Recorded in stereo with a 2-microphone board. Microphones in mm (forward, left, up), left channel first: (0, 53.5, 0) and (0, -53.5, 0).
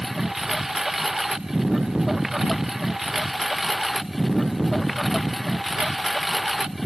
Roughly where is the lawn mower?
Centre.